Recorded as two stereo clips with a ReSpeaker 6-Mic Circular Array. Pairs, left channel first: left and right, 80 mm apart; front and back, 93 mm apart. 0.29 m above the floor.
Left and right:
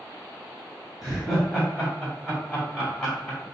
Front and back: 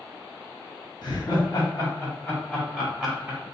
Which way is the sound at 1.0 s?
15° right.